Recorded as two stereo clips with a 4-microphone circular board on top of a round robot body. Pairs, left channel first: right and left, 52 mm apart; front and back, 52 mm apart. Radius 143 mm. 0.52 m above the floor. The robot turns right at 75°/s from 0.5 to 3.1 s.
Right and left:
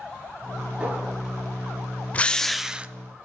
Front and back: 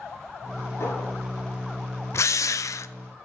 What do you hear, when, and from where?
0.8 s a clink: 25° left, 8 m; by 1.1 s 45° left, 8 m
2.1 s a drill: 30° right, 0.6 m; by 2.9 s 30° left, 0.6 m